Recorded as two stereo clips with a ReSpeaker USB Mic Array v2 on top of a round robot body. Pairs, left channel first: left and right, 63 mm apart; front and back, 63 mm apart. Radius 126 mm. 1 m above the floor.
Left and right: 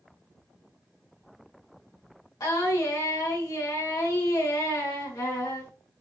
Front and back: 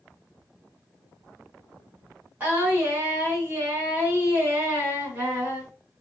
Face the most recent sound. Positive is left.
turn(degrees=120)